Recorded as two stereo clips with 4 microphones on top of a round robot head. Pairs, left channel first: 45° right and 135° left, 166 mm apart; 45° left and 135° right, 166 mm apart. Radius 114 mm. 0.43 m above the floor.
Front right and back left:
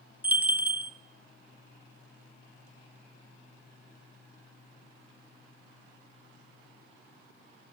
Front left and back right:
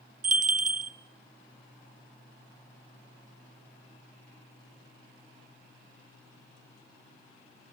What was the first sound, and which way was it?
A bell, 145° right.